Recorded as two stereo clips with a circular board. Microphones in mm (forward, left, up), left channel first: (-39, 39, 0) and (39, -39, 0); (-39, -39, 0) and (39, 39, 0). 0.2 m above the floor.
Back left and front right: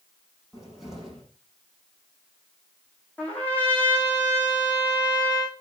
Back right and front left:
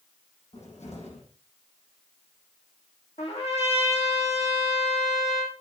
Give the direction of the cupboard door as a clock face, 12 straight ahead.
4 o'clock.